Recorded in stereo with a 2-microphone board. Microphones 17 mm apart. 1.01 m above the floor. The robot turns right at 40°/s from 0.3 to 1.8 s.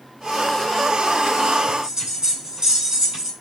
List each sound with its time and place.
1.7 s a bell: 40° right (ahead or behind), 7 m; by 3.3 s 35° right (ahead or behind), 7 m